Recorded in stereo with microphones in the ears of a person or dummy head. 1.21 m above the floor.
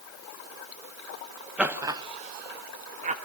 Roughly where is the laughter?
Centre.